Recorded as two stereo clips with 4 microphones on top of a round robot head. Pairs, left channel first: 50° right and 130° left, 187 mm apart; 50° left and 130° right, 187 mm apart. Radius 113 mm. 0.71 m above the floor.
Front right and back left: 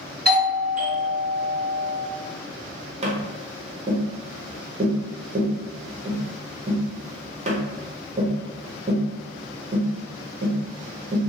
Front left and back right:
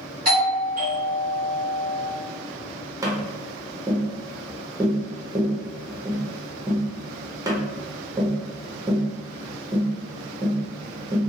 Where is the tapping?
160° left, 0.8 m.